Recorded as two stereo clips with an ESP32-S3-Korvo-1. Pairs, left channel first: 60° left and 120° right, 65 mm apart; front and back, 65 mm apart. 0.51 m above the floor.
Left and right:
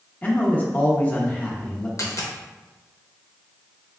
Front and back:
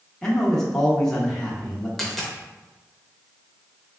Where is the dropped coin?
90° left, 0.7 m.